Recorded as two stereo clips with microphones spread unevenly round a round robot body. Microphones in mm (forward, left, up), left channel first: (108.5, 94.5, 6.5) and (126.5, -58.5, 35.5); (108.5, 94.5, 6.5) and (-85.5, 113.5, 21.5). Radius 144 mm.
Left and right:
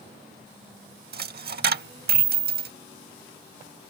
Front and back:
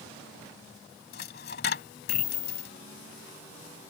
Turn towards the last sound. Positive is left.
turn(degrees=-65)